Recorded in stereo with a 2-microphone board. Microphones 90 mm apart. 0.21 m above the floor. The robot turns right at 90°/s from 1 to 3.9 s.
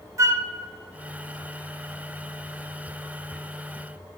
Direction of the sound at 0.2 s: 35° right (ahead or behind).